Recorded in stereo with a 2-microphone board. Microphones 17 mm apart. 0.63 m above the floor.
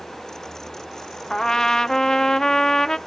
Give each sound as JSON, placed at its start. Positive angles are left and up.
{"t": 1.3, "sound": "a trumpet", "side_deg": 30, "distance_m": 0.5}